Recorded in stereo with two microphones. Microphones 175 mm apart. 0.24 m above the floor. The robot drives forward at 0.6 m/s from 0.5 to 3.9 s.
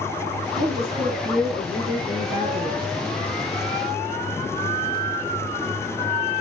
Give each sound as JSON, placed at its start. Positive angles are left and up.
{"t": 0.6, "sound": "a woman speaking", "side_deg": -40, "distance_m": 3.0}